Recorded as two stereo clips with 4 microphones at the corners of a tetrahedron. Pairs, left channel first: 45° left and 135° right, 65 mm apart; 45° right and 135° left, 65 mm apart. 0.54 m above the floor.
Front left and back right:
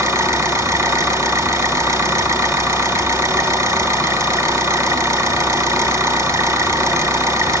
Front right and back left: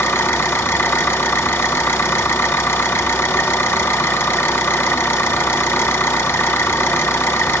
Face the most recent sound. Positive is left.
turn(degrees=-100)